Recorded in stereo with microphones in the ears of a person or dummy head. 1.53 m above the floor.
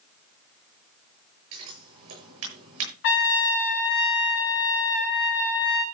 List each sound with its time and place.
1.5 s scissors: 80° right, 8.5 m
3.0 s a trumpet: 55° left (ahead or behind), 2.0 m